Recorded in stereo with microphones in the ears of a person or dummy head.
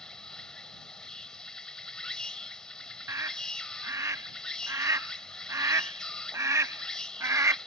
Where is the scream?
15° right (ahead or behind).